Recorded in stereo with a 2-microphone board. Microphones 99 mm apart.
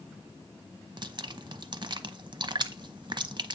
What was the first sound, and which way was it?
Dripping, 50° right (ahead or behind).